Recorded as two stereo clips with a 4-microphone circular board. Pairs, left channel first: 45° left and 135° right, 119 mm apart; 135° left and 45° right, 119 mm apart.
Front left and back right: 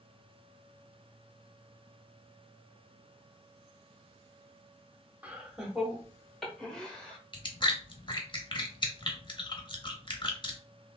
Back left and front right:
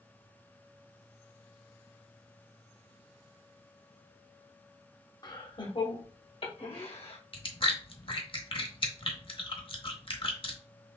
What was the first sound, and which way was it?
Laughter, 155° left.